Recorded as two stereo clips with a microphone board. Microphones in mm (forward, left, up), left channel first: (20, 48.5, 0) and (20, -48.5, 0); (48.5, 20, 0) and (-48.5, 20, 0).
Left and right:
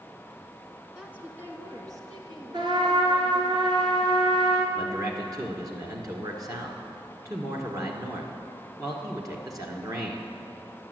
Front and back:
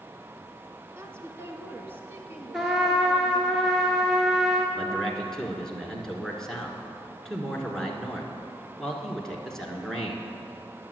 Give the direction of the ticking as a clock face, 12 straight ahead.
No ticking in this recording.